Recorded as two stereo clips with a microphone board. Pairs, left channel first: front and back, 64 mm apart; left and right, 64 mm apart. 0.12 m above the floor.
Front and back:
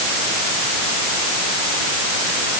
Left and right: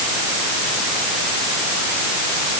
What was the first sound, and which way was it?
Only background noise.